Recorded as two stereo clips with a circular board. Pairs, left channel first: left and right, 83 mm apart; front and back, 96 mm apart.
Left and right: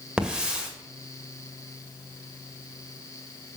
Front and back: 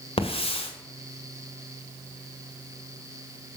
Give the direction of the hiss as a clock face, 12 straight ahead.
12 o'clock.